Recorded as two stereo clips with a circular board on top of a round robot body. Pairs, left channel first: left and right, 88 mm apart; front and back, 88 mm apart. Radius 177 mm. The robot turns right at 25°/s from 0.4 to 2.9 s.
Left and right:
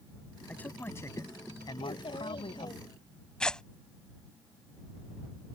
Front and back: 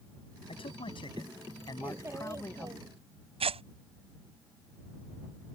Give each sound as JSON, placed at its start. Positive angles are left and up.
{"t": 0.5, "sound": "a man speaking", "azimuth_deg": 15}
{"t": 1.8, "sound": "a child speaking", "azimuth_deg": 110}
{"t": 3.4, "sound": "tearing paper", "azimuth_deg": 170}